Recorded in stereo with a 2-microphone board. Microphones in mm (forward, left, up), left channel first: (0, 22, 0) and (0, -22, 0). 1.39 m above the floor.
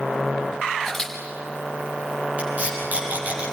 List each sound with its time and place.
0.8 s a camera shutter: 10° left (ahead or behind), 5.5 m
2.4 s tape being pulled: 35° right (ahead or behind), 9.5 m